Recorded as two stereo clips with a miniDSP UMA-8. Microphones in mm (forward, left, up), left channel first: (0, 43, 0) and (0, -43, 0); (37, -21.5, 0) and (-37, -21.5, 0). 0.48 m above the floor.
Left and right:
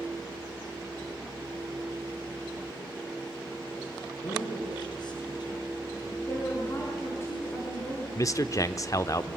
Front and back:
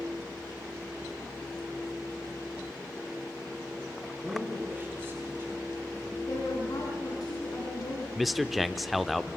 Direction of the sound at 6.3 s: 30° left.